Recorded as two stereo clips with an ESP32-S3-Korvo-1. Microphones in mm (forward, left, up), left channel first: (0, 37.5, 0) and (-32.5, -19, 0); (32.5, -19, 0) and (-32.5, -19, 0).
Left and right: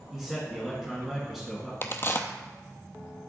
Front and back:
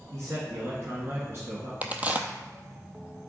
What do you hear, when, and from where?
0.1 s a man speaking: 160° left, 1.8 m
1.8 s a crack: 115° left, 0.7 m